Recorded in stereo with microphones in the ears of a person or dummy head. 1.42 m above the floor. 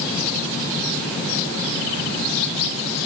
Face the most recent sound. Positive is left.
No sound to turn to.